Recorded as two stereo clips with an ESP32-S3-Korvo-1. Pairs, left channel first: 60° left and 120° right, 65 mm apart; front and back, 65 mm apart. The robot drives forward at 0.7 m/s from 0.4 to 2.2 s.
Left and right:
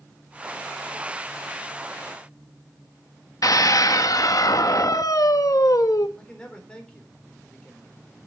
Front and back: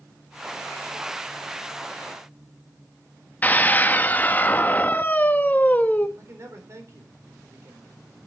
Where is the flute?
I don't hear a flute.